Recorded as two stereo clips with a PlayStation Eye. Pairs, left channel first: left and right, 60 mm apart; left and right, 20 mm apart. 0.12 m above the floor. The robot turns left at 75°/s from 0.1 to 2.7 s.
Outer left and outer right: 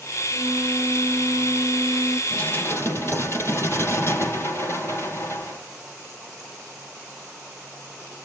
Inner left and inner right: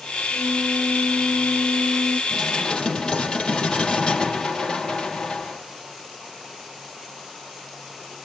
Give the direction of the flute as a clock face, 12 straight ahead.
1 o'clock.